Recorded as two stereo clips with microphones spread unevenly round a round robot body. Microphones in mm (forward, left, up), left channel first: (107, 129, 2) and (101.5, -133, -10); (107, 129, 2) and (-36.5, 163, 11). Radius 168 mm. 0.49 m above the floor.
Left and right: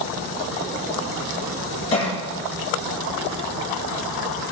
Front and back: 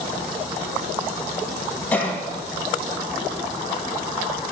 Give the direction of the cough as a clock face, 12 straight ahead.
10 o'clock.